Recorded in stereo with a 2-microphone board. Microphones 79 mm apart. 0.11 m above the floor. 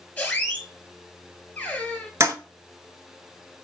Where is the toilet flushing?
40° right (ahead or behind), 0.7 m.